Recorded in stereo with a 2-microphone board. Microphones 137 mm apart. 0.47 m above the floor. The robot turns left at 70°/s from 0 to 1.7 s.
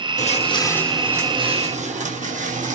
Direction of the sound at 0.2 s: 65° left (ahead or behind).